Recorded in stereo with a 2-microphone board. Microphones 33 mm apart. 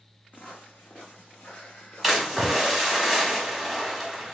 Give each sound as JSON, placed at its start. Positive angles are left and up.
{"t": 0.3, "sound": "footsteps", "side_deg": 65, "distance_m": 1.2}
{"t": 2.0, "sound": "a splash", "side_deg": 0, "distance_m": 1.2}